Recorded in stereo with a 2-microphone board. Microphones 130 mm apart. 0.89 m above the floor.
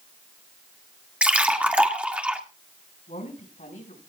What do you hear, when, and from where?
1.2 s a splash: 10° right (ahead or behind), 1.7 m
3.1 s a woman speaking: 80° left, 6.5 m